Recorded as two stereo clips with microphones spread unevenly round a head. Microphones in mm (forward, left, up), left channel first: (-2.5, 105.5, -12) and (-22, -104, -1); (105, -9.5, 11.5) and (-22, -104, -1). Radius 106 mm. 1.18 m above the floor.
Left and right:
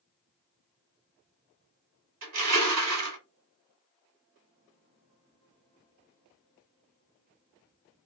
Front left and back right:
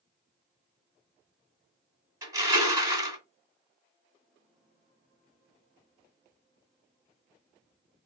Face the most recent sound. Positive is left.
turn(degrees=-75)